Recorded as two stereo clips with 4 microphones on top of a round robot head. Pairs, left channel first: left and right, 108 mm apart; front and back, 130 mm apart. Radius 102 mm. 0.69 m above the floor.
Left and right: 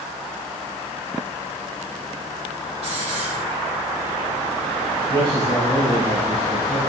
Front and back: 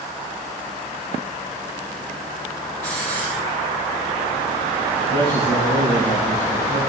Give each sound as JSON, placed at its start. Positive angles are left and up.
{"t": 2.8, "sound": "a hiss", "azimuth_deg": -70, "distance_m": 8.0}
{"t": 5.1, "sound": "a man speaking", "azimuth_deg": -40, "distance_m": 4.5}